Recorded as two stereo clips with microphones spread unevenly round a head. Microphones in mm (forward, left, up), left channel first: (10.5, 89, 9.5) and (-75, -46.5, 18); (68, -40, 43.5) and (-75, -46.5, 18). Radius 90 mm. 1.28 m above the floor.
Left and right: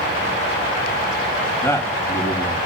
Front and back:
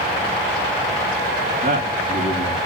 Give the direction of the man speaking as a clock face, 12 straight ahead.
8 o'clock.